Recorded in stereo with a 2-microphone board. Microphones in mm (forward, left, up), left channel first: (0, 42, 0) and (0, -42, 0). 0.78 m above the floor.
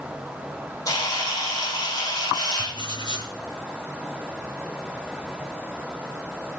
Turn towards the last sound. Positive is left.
turn(degrees=70)  # may be behind; listen again after turning